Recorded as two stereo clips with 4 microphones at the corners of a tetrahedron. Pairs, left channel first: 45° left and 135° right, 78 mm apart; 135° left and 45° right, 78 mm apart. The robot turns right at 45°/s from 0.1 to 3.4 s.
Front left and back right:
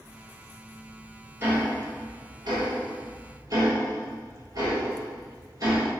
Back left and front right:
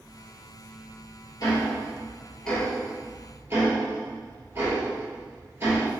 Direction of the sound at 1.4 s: 170° left.